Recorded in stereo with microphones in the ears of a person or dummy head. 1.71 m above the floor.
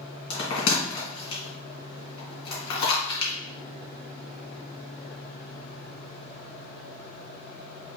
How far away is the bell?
About 2 m.